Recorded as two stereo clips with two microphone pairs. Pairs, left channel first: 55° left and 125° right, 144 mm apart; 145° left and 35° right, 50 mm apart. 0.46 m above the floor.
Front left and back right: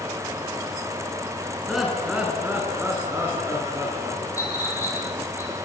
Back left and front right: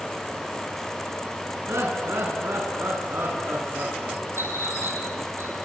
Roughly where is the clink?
Ahead.